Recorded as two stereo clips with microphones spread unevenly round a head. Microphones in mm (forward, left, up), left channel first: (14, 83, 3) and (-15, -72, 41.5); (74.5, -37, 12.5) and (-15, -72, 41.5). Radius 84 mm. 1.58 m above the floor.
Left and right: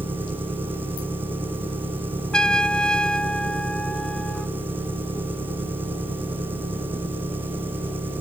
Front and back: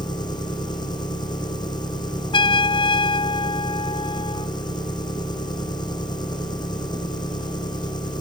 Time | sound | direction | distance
0.0 | an engine running | 25° right | ?
2.3 | a trumpet | 15° right | ?